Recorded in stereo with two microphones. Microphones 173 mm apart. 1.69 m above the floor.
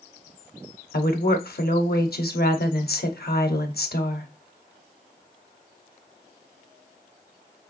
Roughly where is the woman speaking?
Left.